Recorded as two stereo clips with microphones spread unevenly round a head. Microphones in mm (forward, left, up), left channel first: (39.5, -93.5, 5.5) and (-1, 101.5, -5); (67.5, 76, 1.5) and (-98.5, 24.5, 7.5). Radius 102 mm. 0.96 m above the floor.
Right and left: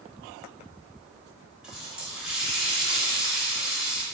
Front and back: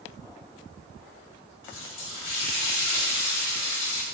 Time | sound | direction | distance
1.6 | a running tap | 15° left | 2.5 m